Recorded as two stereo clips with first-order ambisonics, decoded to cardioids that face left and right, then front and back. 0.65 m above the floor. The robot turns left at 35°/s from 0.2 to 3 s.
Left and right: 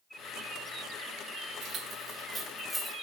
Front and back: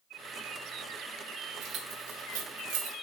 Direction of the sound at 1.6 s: 135° right.